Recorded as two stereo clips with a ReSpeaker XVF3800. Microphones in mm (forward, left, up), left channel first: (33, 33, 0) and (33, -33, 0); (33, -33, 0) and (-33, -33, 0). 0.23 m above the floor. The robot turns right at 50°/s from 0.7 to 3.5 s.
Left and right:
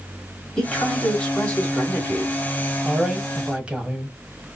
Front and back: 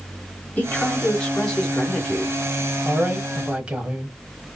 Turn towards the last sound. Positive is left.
turn(degrees=-135)